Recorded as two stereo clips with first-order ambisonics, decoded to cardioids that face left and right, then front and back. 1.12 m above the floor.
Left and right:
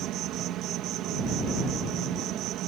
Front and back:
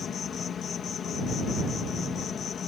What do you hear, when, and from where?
0.0 s an insect: 55° right